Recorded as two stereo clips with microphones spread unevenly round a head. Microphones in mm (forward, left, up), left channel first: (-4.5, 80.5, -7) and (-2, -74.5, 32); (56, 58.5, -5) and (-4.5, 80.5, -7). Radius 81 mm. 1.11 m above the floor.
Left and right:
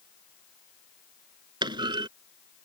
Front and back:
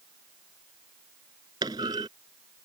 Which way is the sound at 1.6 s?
150° right.